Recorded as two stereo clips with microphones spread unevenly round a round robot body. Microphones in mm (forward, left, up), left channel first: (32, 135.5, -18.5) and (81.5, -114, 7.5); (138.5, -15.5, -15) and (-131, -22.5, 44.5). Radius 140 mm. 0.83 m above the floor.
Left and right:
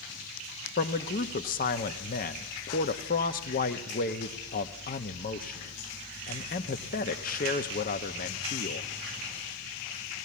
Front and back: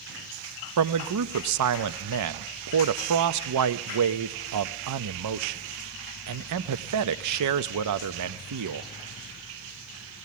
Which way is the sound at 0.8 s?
155° left.